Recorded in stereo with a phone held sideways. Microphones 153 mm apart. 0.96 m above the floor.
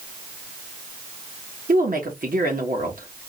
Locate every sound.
1.7 s a woman speaking: 65° right (ahead or behind), 1.3 m